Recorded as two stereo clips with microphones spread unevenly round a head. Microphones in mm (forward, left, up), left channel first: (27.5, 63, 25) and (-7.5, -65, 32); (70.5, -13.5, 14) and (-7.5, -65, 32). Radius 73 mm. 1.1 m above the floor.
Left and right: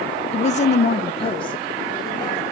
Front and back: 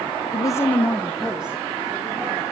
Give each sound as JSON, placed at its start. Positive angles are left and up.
{"t": 0.3, "sound": "a woman speaking", "azimuth_deg": 50, "distance_m": 0.6}